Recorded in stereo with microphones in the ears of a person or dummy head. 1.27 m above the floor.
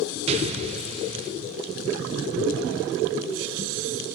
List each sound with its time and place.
0.3 s an explosion: 35° right (ahead or behind), 0.6 m